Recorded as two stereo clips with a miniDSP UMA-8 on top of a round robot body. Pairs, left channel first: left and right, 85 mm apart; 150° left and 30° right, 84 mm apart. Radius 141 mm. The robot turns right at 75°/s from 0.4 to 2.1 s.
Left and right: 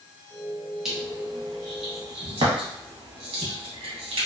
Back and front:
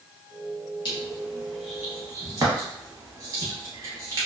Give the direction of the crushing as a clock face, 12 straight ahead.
6 o'clock.